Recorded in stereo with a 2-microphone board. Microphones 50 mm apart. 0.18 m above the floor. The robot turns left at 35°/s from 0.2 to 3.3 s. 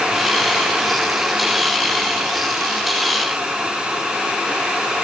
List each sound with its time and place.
Only background noise.